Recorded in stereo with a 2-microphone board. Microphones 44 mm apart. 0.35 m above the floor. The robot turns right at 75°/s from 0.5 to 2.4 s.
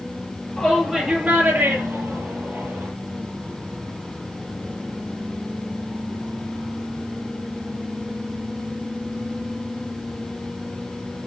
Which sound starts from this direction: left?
A shout, at 0.6 s.